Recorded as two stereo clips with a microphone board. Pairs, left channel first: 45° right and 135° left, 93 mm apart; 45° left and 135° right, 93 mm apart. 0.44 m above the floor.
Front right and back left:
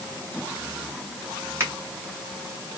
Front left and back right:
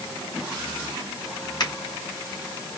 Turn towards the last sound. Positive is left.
turn(degrees=80)